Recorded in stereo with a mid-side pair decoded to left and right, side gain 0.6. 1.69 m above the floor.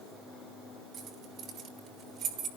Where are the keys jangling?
50° right, 4 m; by 2.5 s 55° right, 3 m.